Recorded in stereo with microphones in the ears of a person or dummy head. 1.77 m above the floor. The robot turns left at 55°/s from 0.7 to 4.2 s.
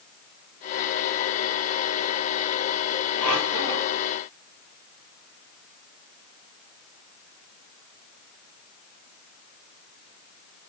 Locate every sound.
3.2 s a squeak: 50° left, 2.5 m; by 4.0 s 5° left, 2.5 m